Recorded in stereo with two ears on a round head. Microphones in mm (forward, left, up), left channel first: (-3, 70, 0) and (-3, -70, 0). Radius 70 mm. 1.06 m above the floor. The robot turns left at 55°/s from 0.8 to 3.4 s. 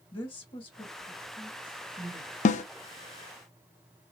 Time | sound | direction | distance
0.1 | a woman speaking | 35° left (ahead or behind) | 1.7 m
2.5 | a snare drum | 50° left (ahead or behind) | 0.6 m